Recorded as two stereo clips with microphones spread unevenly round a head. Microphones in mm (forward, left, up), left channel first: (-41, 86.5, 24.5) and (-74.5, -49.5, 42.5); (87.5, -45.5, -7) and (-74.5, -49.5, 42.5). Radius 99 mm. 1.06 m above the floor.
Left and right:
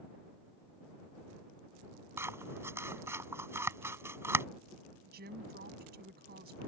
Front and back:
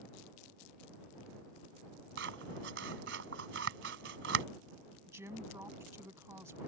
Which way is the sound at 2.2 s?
175° right.